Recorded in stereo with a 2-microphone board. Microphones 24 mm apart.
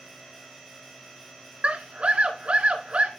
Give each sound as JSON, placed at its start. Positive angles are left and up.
{"t": 1.6, "sound": "a scream", "side_deg": -55, "distance_m": 2.5}